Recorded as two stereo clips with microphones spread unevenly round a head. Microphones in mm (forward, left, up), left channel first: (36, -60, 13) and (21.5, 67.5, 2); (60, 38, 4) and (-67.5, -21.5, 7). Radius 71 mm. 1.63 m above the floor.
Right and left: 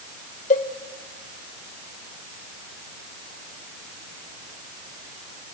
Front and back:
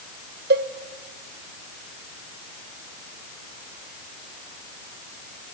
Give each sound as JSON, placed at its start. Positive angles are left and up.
{"t": 0.5, "sound": "a cowbell", "azimuth_deg": -130, "distance_m": 0.9}